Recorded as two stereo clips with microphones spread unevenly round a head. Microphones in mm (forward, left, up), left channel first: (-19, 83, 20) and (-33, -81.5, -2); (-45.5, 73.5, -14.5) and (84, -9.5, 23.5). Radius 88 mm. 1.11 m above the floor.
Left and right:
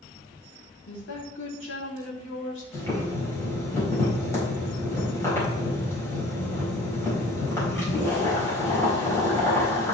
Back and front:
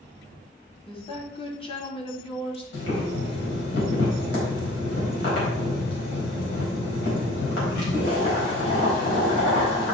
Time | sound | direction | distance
0.9 | a woman speaking | 95° left | 3 m
2.7 | boiling | 160° left | 4 m